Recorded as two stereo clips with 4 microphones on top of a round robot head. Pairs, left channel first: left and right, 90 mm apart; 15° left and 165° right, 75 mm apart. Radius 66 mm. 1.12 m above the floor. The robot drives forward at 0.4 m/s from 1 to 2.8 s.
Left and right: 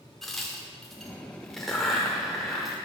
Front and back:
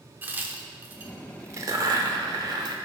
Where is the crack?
175° left, 0.7 m; by 2.8 s straight behind, 1.2 m.